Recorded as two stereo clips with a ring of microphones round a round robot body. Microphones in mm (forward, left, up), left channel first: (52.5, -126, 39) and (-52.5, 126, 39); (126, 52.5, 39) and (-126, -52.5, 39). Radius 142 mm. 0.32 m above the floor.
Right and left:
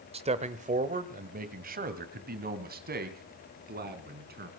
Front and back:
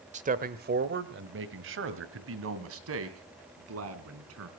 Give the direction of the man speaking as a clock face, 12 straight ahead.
7 o'clock.